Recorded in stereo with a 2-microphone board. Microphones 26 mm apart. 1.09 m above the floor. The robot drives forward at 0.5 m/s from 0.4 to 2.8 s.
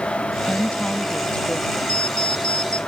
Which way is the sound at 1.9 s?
45° left (ahead or behind).